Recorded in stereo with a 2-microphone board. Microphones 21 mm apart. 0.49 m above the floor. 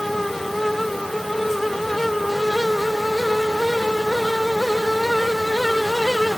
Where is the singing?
No singing in this recording.